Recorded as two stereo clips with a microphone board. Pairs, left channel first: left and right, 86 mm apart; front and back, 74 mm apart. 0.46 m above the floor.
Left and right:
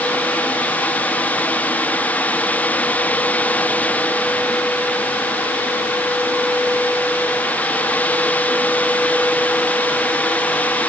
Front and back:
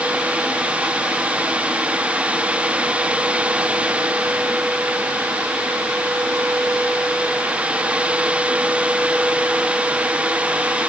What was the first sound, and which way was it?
Only background noise.